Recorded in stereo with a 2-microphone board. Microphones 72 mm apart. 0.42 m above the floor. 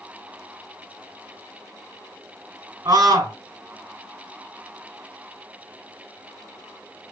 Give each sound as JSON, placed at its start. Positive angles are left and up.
{"t": 2.9, "sound": "a scream", "side_deg": -60, "distance_m": 1.8}